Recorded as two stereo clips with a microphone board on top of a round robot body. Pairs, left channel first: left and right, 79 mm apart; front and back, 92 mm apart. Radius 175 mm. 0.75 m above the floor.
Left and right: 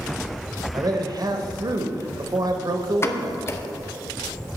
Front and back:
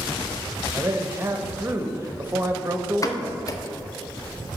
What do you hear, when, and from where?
0.7 s a man speaking: 115° right, 1.0 m
3.0 s a pop: 40° left, 0.8 m